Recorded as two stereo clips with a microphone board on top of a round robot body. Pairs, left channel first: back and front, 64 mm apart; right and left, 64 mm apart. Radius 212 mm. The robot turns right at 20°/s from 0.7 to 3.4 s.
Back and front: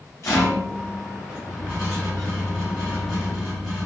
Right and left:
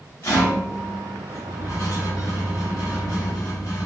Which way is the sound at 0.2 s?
135° right.